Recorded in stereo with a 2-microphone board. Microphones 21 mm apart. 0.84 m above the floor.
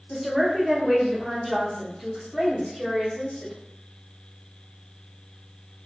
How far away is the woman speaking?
About 1.0 m.